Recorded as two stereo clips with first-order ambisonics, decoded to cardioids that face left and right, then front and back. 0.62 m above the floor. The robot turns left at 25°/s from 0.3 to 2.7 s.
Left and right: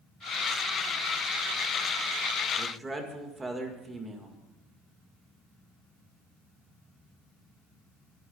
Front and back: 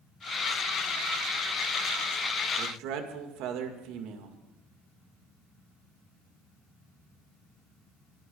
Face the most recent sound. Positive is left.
turn(degrees=-165)